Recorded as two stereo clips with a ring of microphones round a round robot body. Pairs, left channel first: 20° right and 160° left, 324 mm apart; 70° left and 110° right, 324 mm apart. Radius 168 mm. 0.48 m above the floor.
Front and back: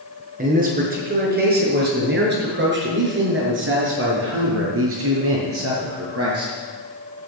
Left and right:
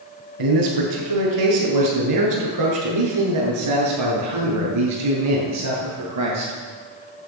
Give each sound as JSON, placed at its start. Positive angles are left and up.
{"t": 0.4, "sound": "a man speaking", "azimuth_deg": -135, "distance_m": 6.0}